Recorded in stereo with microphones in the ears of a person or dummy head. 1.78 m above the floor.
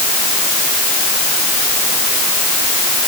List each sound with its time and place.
Only background noise.